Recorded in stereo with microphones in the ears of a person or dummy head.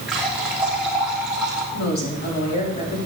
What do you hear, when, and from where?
0.1 s a running tap: centre (ahead or behind), 3 m
1.7 s a woman speaking: 55° left (ahead or behind), 5 m